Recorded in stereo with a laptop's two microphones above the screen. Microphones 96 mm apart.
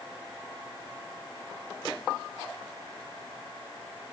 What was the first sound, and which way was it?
Only background noise.